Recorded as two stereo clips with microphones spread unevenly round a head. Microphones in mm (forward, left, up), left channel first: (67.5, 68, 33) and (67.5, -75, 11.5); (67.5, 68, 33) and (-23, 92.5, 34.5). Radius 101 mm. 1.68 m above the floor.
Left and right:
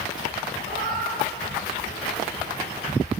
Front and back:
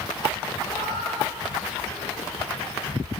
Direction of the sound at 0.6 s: 80° right.